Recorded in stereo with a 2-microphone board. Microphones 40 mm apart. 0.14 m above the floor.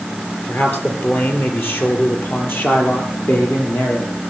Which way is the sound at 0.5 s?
60° left (ahead or behind).